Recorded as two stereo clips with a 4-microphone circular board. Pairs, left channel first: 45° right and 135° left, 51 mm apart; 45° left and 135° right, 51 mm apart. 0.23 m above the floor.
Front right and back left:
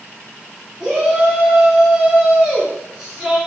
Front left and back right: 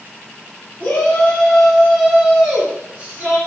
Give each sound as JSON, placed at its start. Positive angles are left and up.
{"t": 0.8, "sound": "a shout", "azimuth_deg": 60, "distance_m": 1.1}